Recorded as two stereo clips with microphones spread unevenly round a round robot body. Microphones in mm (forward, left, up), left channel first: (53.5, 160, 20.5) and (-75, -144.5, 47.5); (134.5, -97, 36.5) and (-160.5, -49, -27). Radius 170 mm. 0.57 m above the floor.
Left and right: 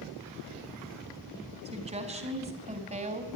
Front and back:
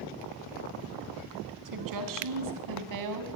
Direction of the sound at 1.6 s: 175° left.